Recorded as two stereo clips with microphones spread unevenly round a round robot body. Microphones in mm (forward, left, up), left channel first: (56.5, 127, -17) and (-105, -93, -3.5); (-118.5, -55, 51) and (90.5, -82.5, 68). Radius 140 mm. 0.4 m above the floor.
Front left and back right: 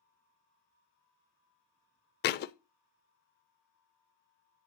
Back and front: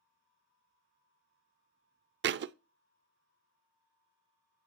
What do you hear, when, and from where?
2.2 s a thud: 10° left, 0.6 m